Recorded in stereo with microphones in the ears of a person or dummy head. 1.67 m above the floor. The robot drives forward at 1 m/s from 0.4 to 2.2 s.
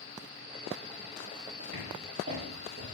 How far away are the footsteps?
About 5 m.